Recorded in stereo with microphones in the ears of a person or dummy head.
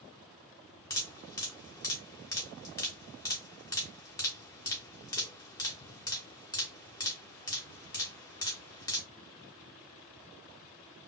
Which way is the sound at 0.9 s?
20° left (ahead or behind).